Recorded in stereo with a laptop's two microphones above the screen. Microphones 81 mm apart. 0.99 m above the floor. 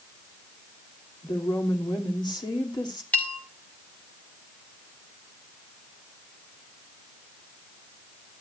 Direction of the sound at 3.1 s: 20° left (ahead or behind).